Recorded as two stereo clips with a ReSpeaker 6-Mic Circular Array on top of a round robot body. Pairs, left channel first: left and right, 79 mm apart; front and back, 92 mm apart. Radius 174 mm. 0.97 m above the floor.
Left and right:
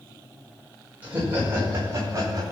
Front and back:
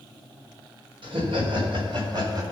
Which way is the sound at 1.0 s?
155° right.